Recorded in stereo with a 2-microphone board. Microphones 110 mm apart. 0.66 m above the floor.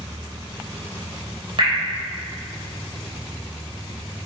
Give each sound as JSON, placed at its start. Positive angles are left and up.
{"t": 1.6, "sound": "dripping", "side_deg": -55, "distance_m": 3.0}